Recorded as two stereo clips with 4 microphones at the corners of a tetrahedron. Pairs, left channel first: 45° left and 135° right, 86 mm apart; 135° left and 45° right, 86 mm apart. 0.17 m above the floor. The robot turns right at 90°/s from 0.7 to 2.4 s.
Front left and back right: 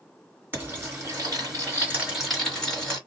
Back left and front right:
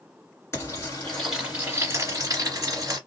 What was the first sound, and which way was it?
Frying, 170° left.